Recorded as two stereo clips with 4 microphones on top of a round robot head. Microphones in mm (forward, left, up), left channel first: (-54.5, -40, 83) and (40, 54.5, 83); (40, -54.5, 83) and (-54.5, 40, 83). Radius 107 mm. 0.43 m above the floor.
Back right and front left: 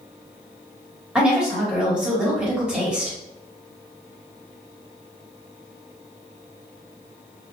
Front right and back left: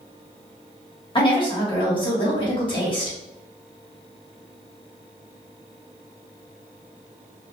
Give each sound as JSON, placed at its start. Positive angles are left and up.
{"t": 1.1, "sound": "a woman speaking", "azimuth_deg": -35, "distance_m": 1.5}